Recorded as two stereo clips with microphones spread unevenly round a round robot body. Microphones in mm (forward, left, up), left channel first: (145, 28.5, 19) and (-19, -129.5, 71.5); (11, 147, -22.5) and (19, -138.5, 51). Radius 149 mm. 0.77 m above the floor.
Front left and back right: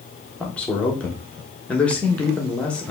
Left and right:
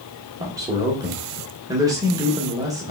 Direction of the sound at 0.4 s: 10° left.